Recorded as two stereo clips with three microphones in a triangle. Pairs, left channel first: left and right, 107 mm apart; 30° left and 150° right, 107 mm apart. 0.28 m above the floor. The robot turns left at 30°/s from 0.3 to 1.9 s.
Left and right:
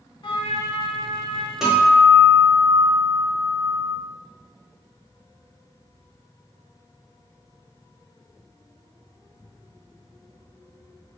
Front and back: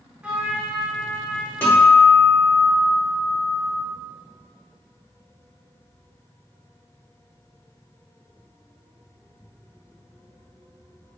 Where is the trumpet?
130° left, 0.8 m; by 1.5 s 95° left, 0.8 m.